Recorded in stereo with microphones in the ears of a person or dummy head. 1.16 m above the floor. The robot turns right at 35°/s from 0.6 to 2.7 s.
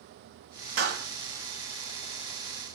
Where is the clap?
55° right (ahead or behind), 2.5 m; by 1.1 s 65° right (ahead or behind), 2.5 m.